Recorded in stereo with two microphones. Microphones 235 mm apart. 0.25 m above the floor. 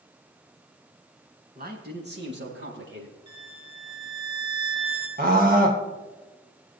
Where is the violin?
20° right (ahead or behind), 2.5 m.